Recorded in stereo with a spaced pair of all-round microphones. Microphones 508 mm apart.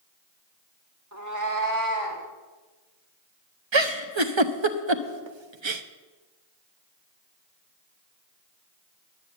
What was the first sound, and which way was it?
A cat meowing, 30° right (ahead or behind).